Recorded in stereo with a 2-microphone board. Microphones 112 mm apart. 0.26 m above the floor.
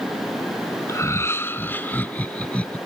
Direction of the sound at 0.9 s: 25° left (ahead or behind).